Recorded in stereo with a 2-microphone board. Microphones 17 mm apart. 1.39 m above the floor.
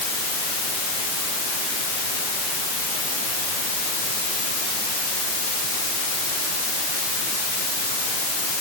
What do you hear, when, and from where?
Only background noise.